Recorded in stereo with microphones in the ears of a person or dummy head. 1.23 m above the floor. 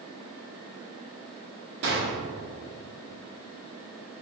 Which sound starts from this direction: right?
A gunshot, at 1.8 s.